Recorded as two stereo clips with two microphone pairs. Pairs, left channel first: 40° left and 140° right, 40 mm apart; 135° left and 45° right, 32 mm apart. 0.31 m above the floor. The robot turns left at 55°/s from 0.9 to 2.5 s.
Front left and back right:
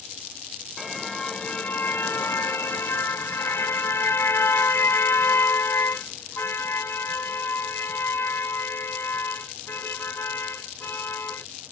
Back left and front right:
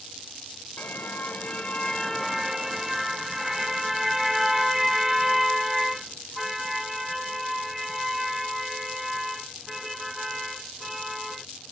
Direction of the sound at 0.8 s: 125° left.